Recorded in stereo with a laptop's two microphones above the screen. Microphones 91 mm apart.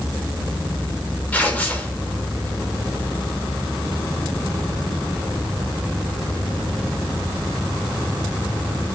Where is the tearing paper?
15° left (ahead or behind), 0.8 m.